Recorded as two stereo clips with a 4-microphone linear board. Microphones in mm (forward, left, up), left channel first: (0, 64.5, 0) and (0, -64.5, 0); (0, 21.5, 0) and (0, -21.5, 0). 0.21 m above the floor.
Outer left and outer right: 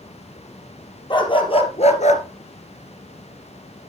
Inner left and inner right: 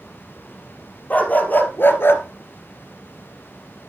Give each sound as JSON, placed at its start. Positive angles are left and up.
{"t": 1.1, "sound": "a dog barking", "side_deg": 35, "distance_m": 2.5}